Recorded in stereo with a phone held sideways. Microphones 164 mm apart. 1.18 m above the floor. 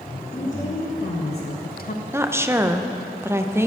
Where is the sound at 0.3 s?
45° left (ahead or behind), 1.5 m.